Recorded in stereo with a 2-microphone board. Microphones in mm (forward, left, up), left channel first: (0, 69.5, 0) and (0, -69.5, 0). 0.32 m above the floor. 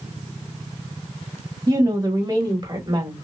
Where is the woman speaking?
30° right (ahead or behind), 1.7 m; by 3.2 s 40° right (ahead or behind), 1.5 m.